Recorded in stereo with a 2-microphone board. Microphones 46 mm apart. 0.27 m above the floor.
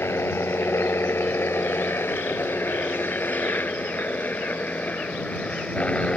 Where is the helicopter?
65° left (ahead or behind); by 6.2 s 30° left (ahead or behind).